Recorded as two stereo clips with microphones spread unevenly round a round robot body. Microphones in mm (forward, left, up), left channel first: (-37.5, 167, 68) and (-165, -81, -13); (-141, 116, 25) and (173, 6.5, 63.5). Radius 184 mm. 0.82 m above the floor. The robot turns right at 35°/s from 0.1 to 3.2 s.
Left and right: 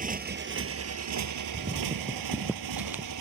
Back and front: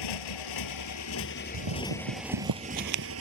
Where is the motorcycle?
Straight behind; by 3.2 s 70° right.